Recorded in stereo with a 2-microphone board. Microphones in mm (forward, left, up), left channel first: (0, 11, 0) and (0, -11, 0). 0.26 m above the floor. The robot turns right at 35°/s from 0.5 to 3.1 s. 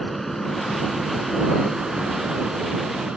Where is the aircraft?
10° left (ahead or behind); by 3.2 s 60° right (ahead or behind).